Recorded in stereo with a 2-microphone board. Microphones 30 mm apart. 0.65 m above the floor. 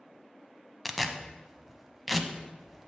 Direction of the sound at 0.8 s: Centre (ahead or behind).